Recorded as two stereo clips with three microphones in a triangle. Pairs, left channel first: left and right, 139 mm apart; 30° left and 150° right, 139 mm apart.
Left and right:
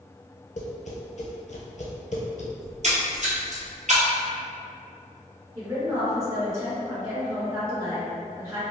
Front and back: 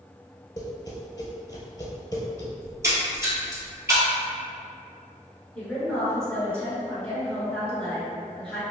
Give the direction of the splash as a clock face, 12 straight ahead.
3 o'clock.